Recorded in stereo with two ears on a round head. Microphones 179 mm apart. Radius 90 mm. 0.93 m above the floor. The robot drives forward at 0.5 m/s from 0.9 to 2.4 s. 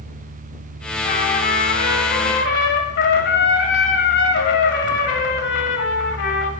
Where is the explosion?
No explosion in this recording.